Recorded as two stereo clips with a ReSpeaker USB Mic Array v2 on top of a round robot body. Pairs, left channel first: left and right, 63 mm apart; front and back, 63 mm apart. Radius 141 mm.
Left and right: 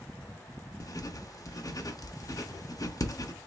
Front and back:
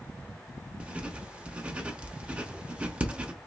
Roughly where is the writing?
Left.